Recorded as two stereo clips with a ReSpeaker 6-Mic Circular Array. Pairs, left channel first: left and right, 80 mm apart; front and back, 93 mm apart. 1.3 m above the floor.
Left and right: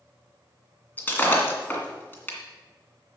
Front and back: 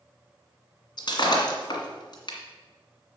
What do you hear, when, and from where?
1.0 s breaking glass: 25° left, 2 m